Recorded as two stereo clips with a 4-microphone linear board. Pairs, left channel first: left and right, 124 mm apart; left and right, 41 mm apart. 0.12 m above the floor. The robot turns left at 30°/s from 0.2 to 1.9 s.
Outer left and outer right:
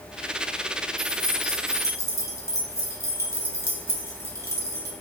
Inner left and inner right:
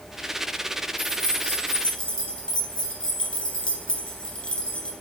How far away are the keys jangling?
About 1.0 m.